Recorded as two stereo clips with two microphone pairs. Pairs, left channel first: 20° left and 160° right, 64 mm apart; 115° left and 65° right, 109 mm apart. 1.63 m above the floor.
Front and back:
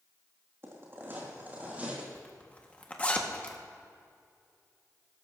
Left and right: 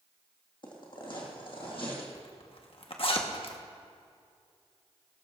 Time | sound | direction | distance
0.6 | footsteps | 155° left | 3.5 m
2.1 | a zipper | 85° left | 1.3 m